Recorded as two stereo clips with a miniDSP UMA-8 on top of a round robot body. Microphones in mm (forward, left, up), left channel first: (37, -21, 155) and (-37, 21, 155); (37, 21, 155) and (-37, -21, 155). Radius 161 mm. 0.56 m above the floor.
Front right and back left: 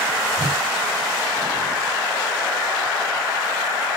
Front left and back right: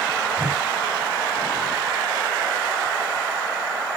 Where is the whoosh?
155° left, 2 m.